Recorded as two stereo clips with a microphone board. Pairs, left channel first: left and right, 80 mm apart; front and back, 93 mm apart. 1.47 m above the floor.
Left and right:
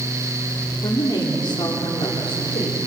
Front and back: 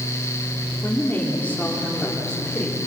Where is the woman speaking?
65° left, 4 m; by 2.8 s 90° left, 4 m.